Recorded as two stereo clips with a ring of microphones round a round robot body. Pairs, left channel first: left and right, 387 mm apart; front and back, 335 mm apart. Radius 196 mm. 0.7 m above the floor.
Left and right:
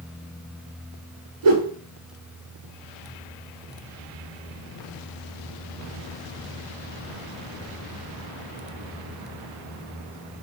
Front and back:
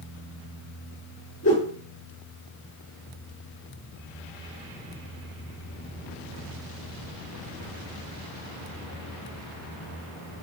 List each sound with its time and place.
1.4 s a whoosh: 70° right, 7 m